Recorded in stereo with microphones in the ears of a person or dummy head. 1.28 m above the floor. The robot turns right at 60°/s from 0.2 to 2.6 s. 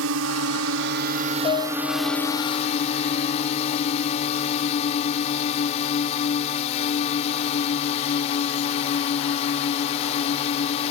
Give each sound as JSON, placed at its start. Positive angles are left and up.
{"t": 0.0, "sound": "a drone", "azimuth_deg": -100}
{"t": 1.4, "sound": "a piano", "azimuth_deg": 35}